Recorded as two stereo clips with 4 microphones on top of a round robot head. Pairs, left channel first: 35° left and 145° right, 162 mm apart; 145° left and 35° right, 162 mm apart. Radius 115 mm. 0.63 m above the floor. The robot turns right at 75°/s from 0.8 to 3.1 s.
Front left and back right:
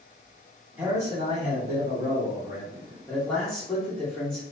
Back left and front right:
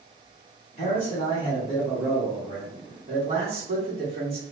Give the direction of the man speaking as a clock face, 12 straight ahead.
7 o'clock.